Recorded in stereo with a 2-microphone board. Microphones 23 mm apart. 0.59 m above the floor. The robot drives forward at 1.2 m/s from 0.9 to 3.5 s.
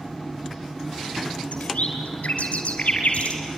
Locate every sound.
1.5 s a bird: 75° left (ahead or behind), 3.5 m; by 3.4 s 65° left (ahead or behind), 4 m